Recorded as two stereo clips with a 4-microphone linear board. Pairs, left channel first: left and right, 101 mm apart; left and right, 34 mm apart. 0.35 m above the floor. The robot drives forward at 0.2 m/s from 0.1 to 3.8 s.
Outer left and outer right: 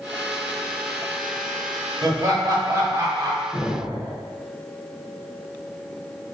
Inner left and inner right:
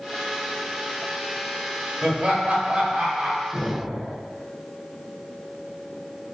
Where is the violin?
No violin in this recording.